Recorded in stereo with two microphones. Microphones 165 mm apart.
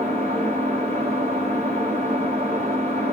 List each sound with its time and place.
0.0 s an engine running: 35° right (ahead or behind), 1.2 m